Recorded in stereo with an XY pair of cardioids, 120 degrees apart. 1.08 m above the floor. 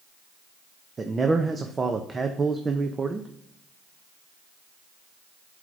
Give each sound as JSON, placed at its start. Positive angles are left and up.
{"t": 1.0, "sound": "a man speaking", "azimuth_deg": -25, "distance_m": 0.6}